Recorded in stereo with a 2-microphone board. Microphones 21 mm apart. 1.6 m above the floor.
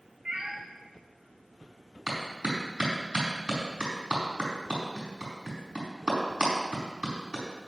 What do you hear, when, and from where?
0.2 s a cat meowing: 40° right (ahead or behind), 2.5 m
2.1 s a clap: 40° right (ahead or behind), 4.5 m